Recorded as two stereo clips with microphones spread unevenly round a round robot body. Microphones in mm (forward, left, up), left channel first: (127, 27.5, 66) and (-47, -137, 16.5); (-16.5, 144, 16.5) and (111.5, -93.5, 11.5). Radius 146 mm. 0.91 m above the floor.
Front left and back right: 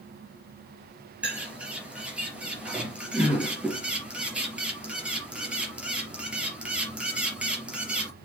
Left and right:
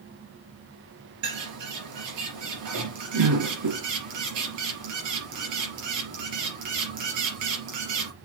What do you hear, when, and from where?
1.2 s a bird: 50° right, 3.5 m